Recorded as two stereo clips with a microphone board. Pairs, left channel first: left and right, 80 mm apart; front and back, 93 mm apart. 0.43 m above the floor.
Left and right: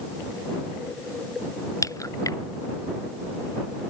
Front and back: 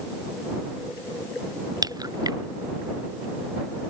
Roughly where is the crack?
Behind left.